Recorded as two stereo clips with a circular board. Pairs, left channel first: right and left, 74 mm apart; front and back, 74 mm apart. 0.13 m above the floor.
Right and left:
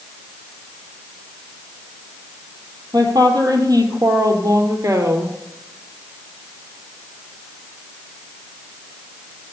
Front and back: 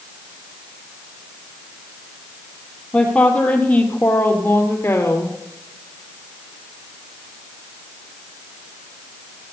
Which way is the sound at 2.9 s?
75° left.